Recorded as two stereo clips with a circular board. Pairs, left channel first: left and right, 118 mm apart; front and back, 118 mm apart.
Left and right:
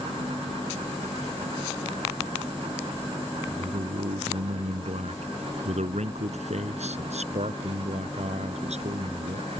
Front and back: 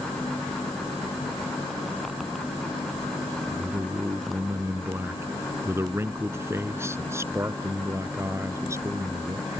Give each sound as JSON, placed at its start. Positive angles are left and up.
{"t": 3.5, "sound": "a man speaking", "azimuth_deg": -105}